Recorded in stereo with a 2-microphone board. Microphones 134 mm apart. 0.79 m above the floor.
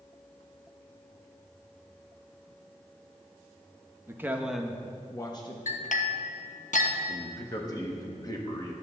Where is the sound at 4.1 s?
20° right (ahead or behind), 0.8 m; by 5.6 s 35° left (ahead or behind), 0.8 m.